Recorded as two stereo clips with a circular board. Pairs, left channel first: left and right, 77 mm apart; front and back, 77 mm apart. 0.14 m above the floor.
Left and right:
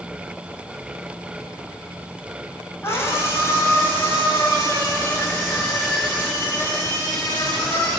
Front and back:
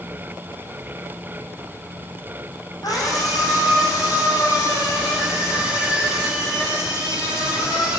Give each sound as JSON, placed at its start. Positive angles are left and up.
{"t": 2.8, "sound": "a scream", "azimuth_deg": 35, "distance_m": 9.0}